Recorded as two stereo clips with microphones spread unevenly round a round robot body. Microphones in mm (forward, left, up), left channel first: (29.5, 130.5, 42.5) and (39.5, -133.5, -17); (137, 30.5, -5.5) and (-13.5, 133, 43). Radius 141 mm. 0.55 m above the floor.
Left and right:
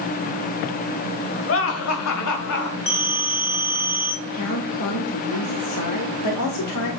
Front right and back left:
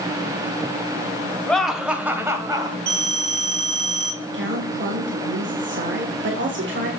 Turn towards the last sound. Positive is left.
turn(degrees=125)